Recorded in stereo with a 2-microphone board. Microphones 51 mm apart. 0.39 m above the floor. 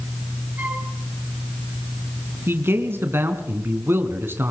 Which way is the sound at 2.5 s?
50° right (ahead or behind).